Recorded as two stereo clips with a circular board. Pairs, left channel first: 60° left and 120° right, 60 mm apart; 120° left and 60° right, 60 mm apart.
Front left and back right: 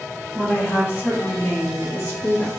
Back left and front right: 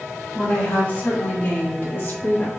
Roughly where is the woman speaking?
Left.